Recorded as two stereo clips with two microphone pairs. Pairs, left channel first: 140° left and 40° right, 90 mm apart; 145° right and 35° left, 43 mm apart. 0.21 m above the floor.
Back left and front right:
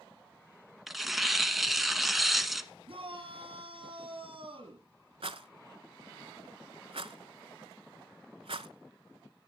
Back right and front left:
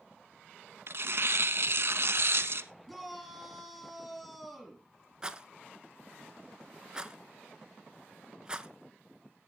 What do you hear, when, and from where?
0.9 s tearing paper: 50° left, 0.8 m
2.9 s a shout: 60° right, 3.5 m
5.2 s a rattle: 35° right, 0.7 m